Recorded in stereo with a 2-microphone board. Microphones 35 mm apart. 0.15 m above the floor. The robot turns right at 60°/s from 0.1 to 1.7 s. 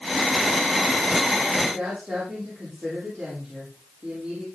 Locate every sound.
1.6 s a woman speaking: 45° right (ahead or behind), 6 m; by 4.5 s 50° right (ahead or behind), 6 m